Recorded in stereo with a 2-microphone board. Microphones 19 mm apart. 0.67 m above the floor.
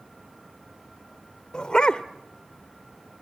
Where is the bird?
No bird in this recording.